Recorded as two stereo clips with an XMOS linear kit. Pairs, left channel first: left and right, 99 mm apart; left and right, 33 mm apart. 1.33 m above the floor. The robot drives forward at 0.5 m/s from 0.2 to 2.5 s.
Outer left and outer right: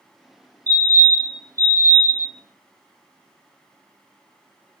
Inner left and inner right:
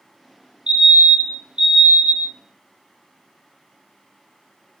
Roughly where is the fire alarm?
Right.